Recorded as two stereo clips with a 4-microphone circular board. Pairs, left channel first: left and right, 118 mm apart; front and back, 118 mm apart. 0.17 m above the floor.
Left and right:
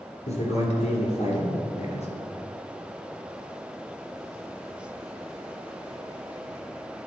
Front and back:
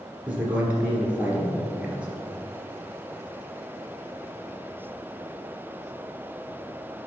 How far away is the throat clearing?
No throat clearing in this recording.